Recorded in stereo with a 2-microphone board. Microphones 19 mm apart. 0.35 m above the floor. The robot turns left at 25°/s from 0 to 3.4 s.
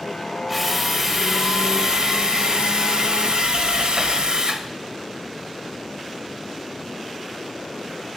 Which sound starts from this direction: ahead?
A drill, at 0.5 s.